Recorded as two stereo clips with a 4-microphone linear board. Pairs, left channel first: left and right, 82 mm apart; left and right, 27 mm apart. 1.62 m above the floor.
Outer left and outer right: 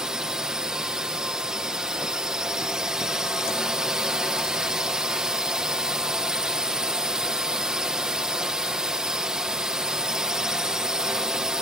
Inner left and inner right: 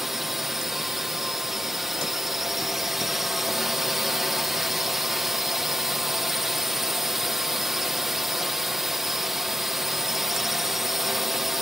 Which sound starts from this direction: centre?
A drone, at 0.0 s.